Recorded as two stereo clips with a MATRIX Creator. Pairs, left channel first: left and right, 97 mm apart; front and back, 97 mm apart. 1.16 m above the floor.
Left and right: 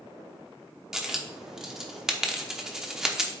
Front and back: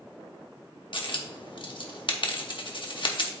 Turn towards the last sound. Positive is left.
turn(degrees=-5)